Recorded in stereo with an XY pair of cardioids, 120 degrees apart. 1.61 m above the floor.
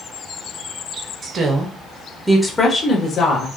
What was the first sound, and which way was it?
A woman speaking, 45° right.